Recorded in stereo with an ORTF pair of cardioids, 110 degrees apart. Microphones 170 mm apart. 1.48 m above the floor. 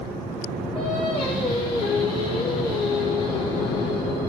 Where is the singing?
30° left, 1.4 m.